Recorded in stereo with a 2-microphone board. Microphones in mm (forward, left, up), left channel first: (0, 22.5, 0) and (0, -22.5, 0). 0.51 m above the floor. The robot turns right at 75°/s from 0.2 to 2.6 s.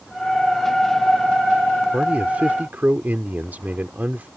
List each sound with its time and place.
1.9 s a man speaking: 145° right; by 4.3 s 95° right